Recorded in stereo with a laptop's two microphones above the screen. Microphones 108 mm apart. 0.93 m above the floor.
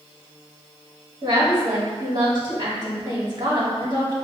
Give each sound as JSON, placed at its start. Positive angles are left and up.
{"t": 1.2, "sound": "a woman speaking", "side_deg": -40, "distance_m": 1.7}